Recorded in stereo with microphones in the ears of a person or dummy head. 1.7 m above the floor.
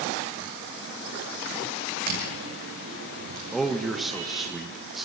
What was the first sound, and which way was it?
Footsteps, 50° right (ahead or behind).